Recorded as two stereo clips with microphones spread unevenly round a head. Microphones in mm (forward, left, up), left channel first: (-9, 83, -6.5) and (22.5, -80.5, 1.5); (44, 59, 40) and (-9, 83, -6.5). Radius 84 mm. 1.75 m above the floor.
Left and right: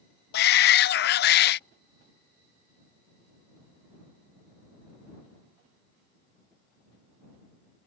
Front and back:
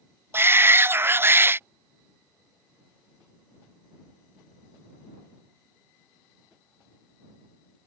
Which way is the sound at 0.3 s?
85° left.